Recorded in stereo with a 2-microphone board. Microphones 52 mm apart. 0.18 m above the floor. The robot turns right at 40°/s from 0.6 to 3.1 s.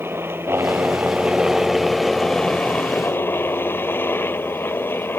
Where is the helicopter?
50° right; by 5.2 s 50° left.